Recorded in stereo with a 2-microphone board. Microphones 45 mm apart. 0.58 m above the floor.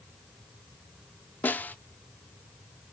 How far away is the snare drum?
About 0.5 m.